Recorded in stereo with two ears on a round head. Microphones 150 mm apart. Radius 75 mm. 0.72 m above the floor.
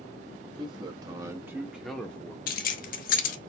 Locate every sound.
0.6 s a man speaking: 30° right (ahead or behind), 1.2 m; by 2.4 s 15° left (ahead or behind), 0.9 m
2.5 s keys jangling: 50° left (ahead or behind), 0.7 m